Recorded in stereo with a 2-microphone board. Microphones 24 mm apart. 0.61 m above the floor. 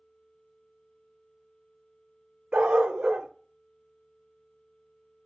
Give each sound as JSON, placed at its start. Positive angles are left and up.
{"t": 2.5, "sound": "a dog barking", "side_deg": -75, "distance_m": 0.5}